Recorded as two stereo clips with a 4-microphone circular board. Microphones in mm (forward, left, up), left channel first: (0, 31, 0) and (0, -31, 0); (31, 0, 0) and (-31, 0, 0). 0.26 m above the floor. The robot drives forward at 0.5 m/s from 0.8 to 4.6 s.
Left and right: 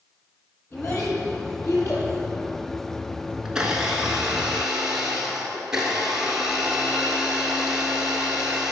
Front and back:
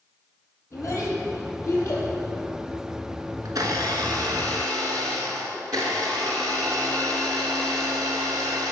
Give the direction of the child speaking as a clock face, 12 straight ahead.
11 o'clock.